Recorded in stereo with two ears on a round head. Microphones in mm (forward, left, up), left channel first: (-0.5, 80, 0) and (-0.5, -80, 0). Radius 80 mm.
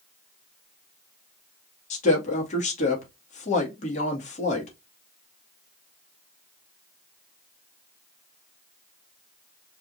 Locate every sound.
1.9 s a woman speaking: 40° left (ahead or behind), 2 m